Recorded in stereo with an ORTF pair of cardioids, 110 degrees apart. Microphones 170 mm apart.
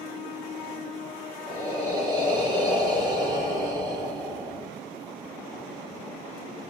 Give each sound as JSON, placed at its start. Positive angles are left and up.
{"t": 1.5, "sound": "breathing", "azimuth_deg": -25, "distance_m": 3.5}